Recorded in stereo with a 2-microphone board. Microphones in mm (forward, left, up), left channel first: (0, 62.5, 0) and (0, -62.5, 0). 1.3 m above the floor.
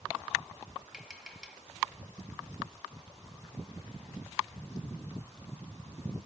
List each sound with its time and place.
0.9 s tapping: 5° right (ahead or behind), 1.7 m